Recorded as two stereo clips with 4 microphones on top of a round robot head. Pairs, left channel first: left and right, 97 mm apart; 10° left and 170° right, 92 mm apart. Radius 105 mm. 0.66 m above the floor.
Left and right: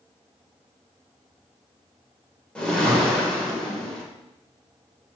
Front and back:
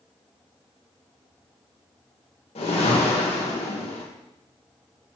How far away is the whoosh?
About 1.9 m.